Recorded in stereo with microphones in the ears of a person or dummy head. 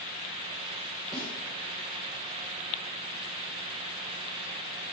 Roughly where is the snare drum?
Centre.